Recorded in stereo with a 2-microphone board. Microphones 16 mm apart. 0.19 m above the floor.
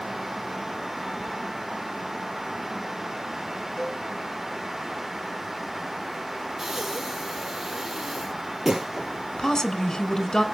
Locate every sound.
3.8 s a cowbell: 10° left (ahead or behind), 8.5 m
6.6 s breathing: 25° right (ahead or behind), 1.6 m
9.4 s a woman speaking: 25° left (ahead or behind), 1.7 m